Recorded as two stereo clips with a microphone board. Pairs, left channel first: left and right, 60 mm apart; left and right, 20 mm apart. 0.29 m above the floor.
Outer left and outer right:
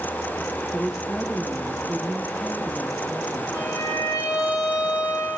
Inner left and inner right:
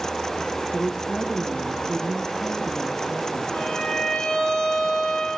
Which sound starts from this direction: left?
A violin, at 3.5 s.